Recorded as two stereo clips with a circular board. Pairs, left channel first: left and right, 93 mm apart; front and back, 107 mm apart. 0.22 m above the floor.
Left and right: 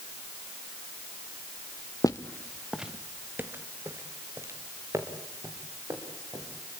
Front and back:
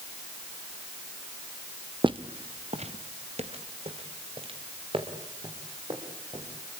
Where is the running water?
No running water in this recording.